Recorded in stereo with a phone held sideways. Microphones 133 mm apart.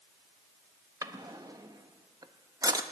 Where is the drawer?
30° right (ahead or behind), 0.7 m.